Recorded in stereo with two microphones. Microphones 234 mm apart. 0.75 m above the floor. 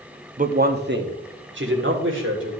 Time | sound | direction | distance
0.4 | a man speaking | 35° right (ahead or behind) | 0.7 m